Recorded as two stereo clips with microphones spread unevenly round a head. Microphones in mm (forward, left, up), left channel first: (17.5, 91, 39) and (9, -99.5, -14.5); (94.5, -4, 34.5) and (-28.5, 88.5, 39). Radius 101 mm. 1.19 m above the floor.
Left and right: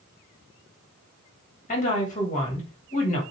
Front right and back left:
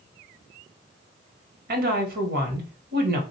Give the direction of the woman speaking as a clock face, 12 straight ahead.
7 o'clock.